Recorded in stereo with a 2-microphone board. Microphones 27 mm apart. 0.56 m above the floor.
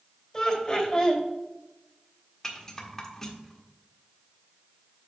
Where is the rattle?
15° left (ahead or behind), 1.4 m.